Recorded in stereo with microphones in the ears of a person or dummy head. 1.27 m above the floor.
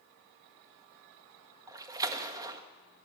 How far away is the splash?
About 1.7 m.